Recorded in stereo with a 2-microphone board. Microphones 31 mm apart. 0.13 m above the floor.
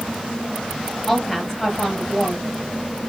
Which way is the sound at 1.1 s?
15° left (ahead or behind).